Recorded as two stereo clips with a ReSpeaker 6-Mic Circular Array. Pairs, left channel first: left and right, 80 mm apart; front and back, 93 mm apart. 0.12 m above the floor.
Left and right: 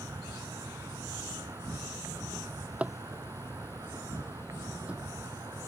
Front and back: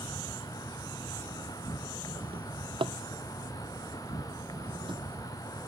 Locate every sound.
0.0 s an insect: 45° right
2.3 s a drawer: 165° right